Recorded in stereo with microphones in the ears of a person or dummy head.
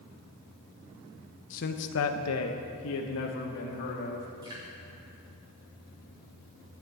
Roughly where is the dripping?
Right.